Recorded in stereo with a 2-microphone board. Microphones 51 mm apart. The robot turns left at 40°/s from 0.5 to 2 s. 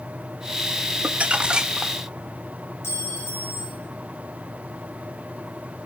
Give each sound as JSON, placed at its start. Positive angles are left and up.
{"t": 1.0, "sound": "crumpling", "azimuth_deg": -130, "distance_m": 0.5}
{"t": 2.8, "sound": "a clink", "side_deg": 50, "distance_m": 4.0}